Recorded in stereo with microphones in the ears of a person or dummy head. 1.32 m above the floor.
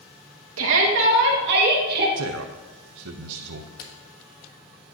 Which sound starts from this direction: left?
A camera shutter, at 3.8 s.